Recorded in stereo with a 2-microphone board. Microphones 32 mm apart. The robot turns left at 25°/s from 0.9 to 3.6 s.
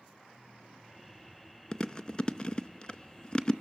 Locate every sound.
1.7 s chewing: 25° left (ahead or behind), 0.7 m